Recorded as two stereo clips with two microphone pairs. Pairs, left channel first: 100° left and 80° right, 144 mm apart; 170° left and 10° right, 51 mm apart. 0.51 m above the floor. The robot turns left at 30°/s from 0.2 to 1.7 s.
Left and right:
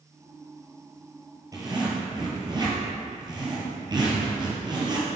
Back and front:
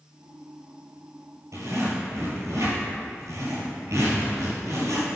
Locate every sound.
1.5 s a zipper: 15° right, 1.8 m; by 5.1 s 20° right, 1.8 m